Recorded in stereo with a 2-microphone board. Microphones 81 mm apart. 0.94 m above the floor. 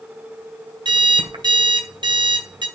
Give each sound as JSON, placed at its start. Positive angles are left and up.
{"t": 0.8, "sound": "an alarm clock", "side_deg": -75, "distance_m": 2.0}